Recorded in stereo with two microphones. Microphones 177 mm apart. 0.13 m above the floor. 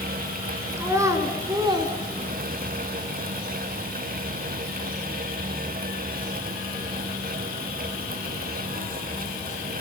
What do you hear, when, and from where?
0.8 s a child speaking: 15° right (ahead or behind), 1.6 m; by 2.8 s 30° right (ahead or behind), 1.3 m